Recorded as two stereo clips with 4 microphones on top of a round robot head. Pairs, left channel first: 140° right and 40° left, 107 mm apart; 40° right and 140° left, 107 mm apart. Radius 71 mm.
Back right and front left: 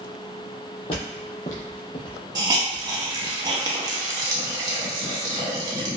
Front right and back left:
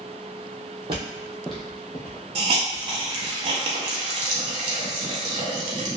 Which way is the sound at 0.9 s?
Straight behind.